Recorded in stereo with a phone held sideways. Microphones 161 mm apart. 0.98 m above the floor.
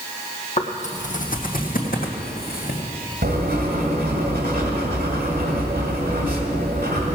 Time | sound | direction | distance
0.6 | footsteps | 45° left (ahead or behind) | 1.3 m
3.2 | writing | 75° right (ahead or behind) | 1.9 m